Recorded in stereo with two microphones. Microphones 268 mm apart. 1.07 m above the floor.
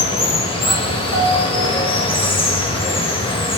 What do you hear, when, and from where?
0.0 s running water: 20° left (ahead or behind), 0.8 m
1.1 s a piano: 80° left, 0.8 m